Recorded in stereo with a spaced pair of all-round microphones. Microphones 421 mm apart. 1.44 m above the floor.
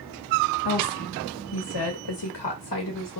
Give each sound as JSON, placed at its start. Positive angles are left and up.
{"t": 0.7, "sound": "a woman speaking", "side_deg": 55, "distance_m": 1.5}